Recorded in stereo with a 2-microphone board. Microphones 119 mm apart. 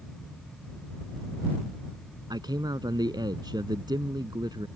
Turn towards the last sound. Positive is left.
turn(degrees=-35)  # may be behind; listen again after turning